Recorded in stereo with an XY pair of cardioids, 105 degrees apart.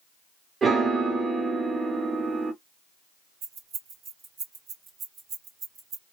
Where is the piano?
40° right, 1.2 m.